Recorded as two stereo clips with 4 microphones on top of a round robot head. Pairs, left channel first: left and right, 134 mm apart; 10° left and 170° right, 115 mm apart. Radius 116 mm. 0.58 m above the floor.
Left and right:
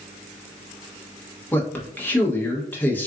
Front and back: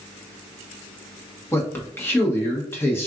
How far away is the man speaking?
About 1.0 m.